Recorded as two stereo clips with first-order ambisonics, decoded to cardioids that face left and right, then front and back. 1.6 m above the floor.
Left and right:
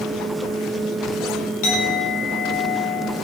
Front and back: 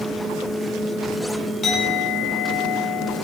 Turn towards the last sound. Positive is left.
turn(degrees=75)